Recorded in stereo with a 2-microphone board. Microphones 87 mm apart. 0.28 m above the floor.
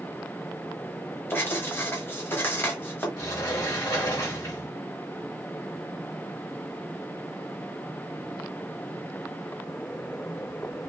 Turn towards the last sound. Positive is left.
turn(degrees=50)  # may be behind; listen again after turning